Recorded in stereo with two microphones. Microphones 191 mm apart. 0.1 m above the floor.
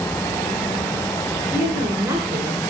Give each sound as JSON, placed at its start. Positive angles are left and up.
{"t": 1.5, "sound": "a woman speaking", "side_deg": -25, "distance_m": 1.2}